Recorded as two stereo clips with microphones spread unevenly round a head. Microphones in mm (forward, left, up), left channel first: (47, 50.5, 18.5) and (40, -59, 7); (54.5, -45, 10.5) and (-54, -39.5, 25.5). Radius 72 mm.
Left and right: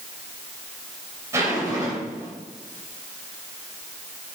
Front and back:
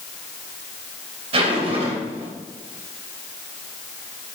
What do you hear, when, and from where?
1.3 s a zipper: 165° right, 3 m